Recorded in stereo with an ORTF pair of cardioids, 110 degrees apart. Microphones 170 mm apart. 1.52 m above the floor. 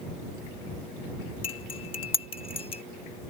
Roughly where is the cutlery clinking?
Ahead left.